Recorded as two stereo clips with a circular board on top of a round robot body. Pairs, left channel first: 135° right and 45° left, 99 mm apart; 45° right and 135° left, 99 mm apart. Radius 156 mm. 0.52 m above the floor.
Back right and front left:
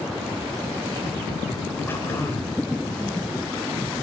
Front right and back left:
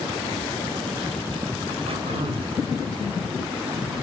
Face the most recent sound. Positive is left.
turn(degrees=155)